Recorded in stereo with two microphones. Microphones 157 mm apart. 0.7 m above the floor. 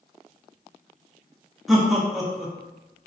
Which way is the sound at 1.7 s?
Centre (ahead or behind).